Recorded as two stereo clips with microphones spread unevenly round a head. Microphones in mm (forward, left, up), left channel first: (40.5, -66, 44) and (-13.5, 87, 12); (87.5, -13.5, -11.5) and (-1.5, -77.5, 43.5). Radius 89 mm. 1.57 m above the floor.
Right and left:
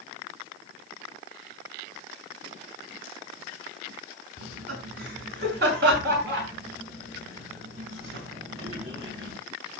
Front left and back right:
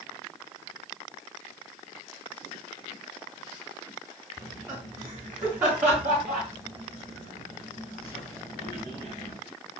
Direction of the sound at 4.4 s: 145° left.